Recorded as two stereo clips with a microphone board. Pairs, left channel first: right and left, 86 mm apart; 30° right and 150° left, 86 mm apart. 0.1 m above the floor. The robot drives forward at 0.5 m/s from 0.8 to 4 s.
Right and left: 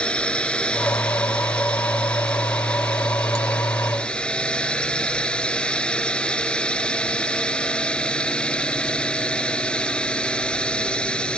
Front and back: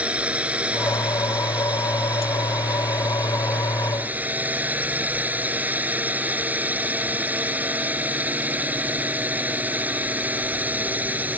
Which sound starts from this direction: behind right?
A drone, at 0.0 s.